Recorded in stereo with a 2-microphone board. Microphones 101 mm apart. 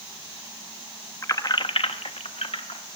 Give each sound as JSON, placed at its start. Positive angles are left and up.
{"t": 1.2, "sound": "keys jangling", "side_deg": 25, "distance_m": 0.9}